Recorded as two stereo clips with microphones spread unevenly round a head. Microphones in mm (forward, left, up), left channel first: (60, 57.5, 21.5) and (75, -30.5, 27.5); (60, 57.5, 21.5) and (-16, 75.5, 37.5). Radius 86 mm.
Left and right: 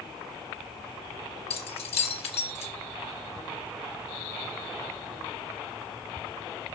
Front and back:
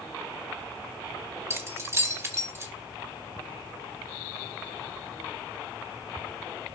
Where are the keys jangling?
110° left, 2.5 m.